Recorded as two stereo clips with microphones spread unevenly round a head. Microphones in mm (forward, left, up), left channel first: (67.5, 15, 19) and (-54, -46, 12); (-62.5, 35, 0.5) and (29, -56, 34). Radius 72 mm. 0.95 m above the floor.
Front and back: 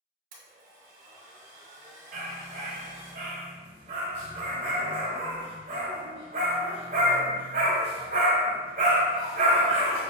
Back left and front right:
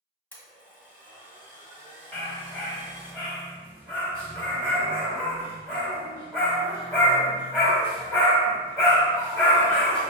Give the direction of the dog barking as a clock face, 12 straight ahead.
4 o'clock.